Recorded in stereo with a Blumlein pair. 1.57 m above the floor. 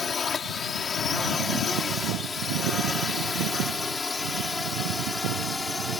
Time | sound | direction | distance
0.0 | a drone | 20° left | ?